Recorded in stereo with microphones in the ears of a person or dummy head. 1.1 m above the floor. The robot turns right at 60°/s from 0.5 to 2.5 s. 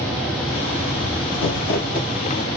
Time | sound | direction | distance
1.3 | crumpling | 100° left | 1.6 m